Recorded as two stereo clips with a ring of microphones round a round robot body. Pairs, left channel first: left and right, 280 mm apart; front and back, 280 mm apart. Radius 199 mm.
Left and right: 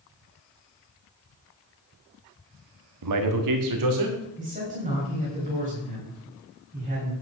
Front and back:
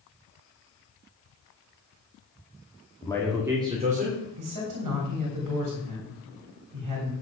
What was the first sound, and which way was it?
A man speaking, 80° right.